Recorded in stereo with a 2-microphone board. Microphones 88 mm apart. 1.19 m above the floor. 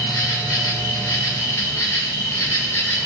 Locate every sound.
0.0 s an insect: 35° left (ahead or behind), 2.5 m